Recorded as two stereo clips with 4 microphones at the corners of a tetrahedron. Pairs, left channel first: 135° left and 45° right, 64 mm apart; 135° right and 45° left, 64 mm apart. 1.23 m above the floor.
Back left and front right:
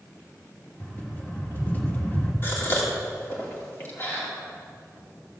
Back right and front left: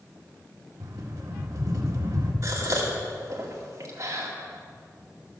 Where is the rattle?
70° left, 1.8 m.